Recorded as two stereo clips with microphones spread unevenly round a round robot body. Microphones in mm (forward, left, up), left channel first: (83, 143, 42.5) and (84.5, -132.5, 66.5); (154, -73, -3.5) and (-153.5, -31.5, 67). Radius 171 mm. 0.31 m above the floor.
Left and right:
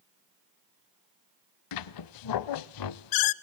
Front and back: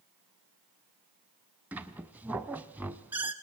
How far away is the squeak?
About 0.6 m.